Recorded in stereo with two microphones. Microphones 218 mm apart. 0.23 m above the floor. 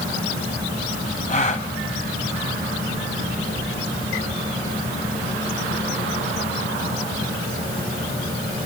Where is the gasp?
30° left (ahead or behind), 1.7 m.